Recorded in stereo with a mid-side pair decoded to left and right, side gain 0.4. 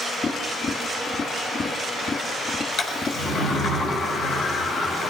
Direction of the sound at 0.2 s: 40° left.